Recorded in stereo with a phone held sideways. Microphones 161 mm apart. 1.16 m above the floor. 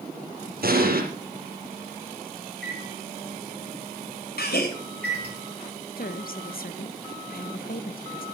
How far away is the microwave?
About 3 m.